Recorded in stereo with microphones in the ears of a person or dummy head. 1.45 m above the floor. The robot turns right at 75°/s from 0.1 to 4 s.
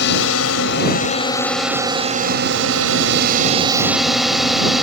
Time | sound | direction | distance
0.0 | a drone | 65° left | ?